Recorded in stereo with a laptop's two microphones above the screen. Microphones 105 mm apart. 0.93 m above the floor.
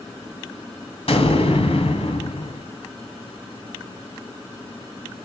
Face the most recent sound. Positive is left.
turn(degrees=70)  # may be behind; listen again after turning